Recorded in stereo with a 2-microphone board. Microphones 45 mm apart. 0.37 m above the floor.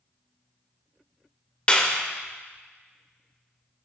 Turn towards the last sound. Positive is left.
turn(degrees=25)  # may be behind; listen again after turning